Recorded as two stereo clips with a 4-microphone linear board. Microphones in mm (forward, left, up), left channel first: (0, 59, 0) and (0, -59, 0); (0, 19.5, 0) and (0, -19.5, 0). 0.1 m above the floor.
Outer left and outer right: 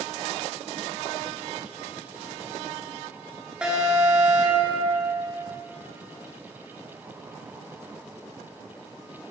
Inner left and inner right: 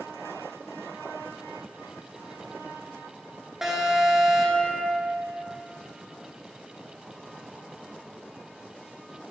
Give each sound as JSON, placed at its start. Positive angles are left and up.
{"t": 3.6, "sound": "an alarm", "side_deg": -10, "distance_m": 1.1}